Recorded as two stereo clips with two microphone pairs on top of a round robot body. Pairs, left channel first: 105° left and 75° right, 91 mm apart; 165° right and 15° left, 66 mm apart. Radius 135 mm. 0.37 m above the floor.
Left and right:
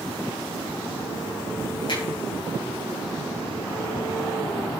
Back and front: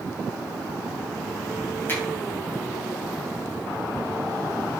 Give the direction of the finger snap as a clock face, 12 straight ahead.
7 o'clock.